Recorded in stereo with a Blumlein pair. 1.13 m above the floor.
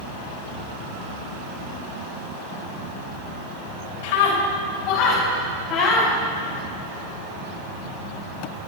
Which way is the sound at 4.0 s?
50° left.